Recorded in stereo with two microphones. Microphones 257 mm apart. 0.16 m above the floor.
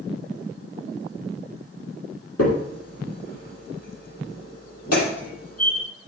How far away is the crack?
About 5 m.